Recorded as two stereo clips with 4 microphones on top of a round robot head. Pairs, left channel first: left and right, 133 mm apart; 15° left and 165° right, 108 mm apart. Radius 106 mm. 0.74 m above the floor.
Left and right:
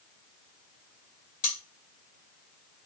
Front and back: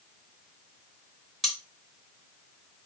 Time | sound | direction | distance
1.4 | cutlery clinking | 105° left | 1.3 m